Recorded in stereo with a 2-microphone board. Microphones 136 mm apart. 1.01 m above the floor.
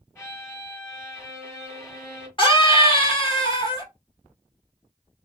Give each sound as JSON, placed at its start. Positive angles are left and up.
{"t": 0.1, "sound": "a violin", "side_deg": 20, "distance_m": 1.7}
{"t": 2.4, "sound": "a scream", "side_deg": 40, "distance_m": 1.2}